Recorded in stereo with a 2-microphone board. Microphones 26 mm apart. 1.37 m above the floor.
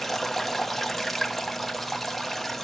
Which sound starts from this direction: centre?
Running water, at 0.0 s.